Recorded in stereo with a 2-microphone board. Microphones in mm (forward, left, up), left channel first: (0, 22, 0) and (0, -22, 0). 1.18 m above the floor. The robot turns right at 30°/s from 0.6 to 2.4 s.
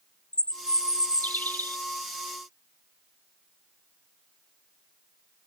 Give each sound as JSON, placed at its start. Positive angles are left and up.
{"t": 0.3, "sound": "a bird", "azimuth_deg": 30, "distance_m": 0.5}